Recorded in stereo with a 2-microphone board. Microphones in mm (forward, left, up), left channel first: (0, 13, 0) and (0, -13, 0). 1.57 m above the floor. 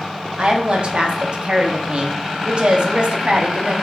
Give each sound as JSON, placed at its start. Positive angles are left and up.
{"t": 0.4, "sound": "a woman speaking", "side_deg": -45, "distance_m": 0.6}